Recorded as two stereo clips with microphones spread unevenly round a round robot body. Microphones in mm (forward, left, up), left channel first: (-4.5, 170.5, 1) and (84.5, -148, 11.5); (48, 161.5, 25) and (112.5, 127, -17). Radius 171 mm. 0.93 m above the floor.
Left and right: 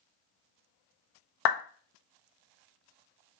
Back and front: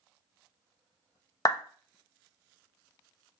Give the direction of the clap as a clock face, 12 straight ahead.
9 o'clock.